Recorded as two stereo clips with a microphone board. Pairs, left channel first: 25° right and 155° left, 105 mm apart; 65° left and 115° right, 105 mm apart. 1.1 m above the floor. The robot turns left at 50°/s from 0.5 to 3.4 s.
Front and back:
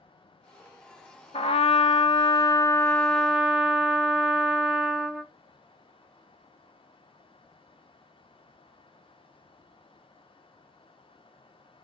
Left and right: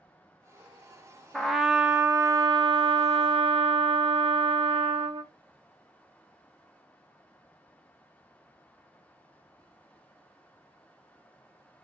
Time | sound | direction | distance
1.3 | a trumpet | 15° right | 0.6 m